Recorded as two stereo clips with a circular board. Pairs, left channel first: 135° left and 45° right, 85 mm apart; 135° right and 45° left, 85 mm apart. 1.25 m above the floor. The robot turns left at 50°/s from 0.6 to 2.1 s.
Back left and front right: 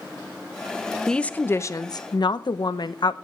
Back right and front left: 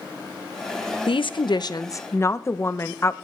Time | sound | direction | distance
1.1 | a woman speaking | 140° right | 0.9 m